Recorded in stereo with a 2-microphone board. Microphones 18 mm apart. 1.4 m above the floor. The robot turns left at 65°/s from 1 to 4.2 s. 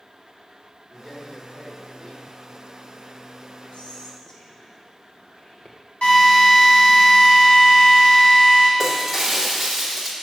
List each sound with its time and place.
0.9 s a man speaking: 175° right, 1.9 m; by 2.2 s 105° left, 1.9 m
3.7 s whispering: 75° left (ahead or behind), 1.6 m; by 5.8 s 45° left (ahead or behind), 1.6 m
6.0 s a drill: 85° left, 4.5 m
8.8 s breaking glass: centre (ahead or behind), 2.5 m